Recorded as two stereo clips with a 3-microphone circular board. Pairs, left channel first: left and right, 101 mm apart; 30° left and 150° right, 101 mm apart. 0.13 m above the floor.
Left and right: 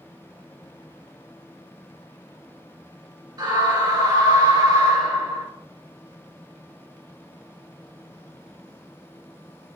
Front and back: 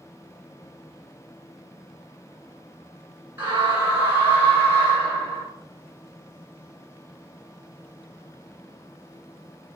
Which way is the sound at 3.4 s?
90° right.